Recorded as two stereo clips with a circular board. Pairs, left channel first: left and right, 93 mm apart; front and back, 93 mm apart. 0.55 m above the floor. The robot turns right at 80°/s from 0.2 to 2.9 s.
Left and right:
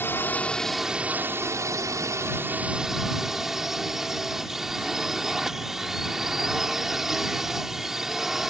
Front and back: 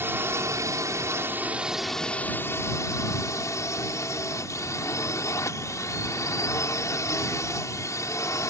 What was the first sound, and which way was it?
A drone, 135° left.